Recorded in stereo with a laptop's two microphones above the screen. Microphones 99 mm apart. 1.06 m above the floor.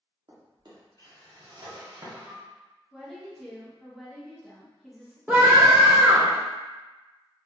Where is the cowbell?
I don't hear a cowbell.